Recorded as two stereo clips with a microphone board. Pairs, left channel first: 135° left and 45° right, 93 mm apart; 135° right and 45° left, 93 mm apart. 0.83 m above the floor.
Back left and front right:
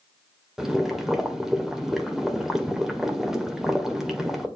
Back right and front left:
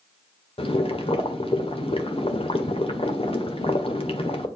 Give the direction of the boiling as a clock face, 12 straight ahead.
4 o'clock.